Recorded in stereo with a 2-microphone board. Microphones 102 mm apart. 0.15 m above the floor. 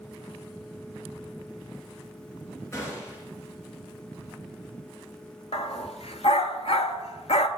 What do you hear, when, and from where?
2.7 s a gunshot: 25° left (ahead or behind), 2.5 m
5.5 s a dog barking: 70° left (ahead or behind), 0.7 m